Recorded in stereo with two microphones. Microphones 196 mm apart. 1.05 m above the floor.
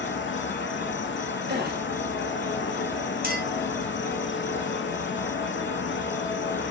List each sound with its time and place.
0.0 s an insect: 70° left (ahead or behind), 0.7 m
1.5 s a gasp: 55° right (ahead or behind), 0.9 m
3.2 s a clink: 50° right (ahead or behind), 1.5 m